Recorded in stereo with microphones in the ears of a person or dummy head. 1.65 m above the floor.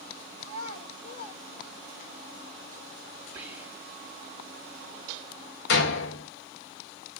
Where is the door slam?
70° left (ahead or behind), 2 m.